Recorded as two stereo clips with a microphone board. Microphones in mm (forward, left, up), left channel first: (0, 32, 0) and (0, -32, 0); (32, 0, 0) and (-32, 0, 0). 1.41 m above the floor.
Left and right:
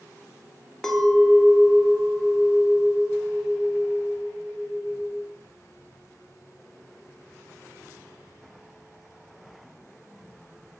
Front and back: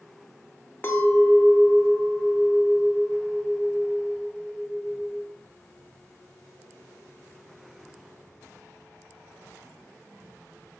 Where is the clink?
20° left, 0.6 m.